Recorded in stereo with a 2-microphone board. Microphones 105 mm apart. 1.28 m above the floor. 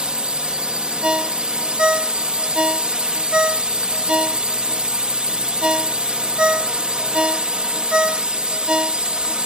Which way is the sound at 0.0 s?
10° right (ahead or behind).